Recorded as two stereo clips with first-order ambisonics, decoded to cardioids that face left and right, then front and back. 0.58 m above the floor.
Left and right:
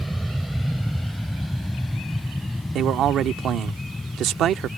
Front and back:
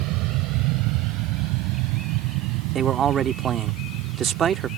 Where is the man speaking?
130° right.